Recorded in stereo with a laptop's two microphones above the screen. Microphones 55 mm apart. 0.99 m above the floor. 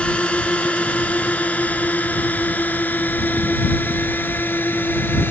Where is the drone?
20° left (ahead or behind); by 5.3 s 40° left (ahead or behind).